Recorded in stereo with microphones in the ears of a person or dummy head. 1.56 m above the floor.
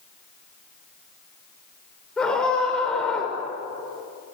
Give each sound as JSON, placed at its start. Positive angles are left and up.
{"t": 2.2, "sound": "a scream", "side_deg": 10, "distance_m": 6.5}